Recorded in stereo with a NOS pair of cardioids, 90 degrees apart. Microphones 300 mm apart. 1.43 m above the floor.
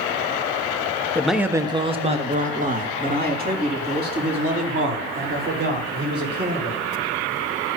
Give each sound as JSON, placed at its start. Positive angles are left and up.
{"t": 1.1, "sound": "a man speaking", "azimuth_deg": 5, "distance_m": 0.7}